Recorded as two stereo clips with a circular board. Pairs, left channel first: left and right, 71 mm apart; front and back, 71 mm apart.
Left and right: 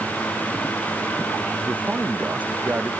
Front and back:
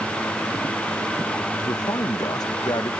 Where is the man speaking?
20° right; by 2.9 s 25° right.